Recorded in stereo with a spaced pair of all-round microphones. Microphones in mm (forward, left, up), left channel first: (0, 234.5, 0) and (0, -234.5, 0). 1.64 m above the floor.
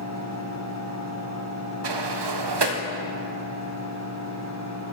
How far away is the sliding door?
About 0.7 m.